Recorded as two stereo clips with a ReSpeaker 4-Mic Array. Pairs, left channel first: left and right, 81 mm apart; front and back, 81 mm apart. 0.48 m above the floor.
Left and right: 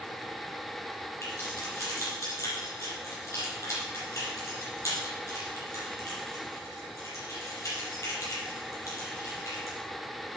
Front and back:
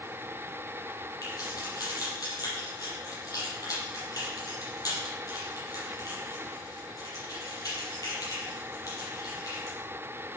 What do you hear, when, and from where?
1.2 s keys jangling: 40° left, 8.5 m